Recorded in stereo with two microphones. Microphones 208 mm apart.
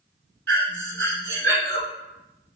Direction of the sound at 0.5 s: 70° right (ahead or behind).